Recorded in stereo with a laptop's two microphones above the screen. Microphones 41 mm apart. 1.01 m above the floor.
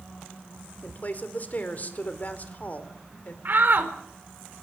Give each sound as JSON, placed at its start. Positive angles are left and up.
{"t": 0.8, "sound": "a woman speaking", "side_deg": 45, "distance_m": 4.0}
{"t": 3.5, "sound": "a shout", "side_deg": -50, "distance_m": 4.0}